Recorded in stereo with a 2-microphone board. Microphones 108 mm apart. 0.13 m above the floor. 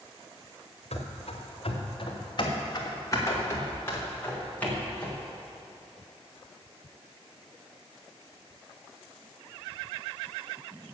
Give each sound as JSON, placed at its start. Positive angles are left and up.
{"t": 0.9, "sound": "running footsteps", "side_deg": 75, "distance_m": 2.0}